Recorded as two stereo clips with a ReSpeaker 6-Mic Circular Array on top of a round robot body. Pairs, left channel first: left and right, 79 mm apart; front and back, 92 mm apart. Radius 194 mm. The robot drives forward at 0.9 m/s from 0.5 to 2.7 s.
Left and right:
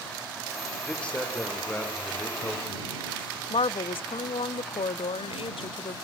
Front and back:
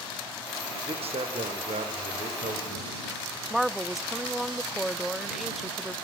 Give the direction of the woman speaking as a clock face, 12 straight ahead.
9 o'clock.